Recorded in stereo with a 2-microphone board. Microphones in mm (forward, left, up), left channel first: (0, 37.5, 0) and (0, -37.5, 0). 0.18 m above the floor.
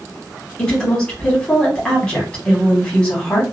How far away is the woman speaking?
About 1.3 m.